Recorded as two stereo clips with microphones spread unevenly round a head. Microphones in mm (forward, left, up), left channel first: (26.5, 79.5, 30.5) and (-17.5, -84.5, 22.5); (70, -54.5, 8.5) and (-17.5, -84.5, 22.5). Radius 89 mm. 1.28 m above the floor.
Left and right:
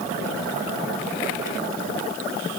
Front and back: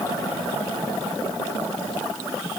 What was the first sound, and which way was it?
Only background noise.